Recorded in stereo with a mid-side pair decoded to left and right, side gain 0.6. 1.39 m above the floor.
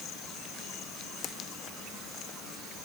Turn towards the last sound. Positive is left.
No sound to turn to.